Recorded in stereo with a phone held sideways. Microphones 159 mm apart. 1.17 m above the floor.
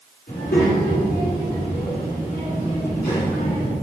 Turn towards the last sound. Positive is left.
turn(degrees=65)  # may be behind; listen again after turning